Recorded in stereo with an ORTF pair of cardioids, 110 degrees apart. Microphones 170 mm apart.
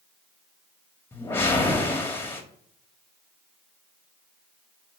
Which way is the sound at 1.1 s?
15° left.